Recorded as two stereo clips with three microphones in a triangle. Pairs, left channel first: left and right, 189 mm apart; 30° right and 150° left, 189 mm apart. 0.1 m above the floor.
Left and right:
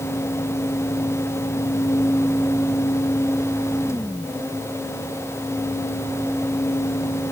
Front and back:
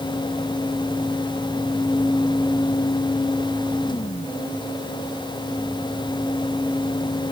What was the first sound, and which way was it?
Only background noise.